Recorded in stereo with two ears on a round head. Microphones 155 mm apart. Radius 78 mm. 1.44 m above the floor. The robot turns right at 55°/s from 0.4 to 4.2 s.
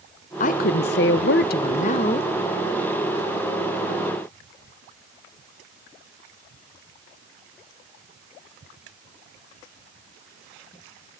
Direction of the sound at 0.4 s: 50° left.